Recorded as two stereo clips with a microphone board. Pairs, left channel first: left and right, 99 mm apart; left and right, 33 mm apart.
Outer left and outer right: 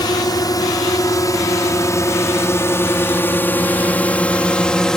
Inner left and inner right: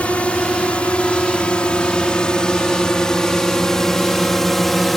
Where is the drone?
45° left (ahead or behind); by 5.0 s 5° left (ahead or behind).